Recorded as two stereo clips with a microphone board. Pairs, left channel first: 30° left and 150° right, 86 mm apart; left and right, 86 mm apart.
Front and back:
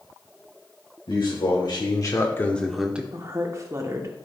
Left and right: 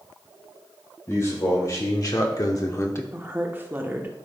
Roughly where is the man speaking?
Ahead left.